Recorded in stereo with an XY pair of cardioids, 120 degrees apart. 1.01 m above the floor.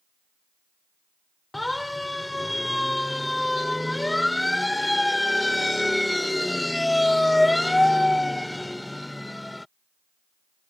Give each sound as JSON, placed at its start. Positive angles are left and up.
{"t": 1.5, "sound": "a siren", "azimuth_deg": 5}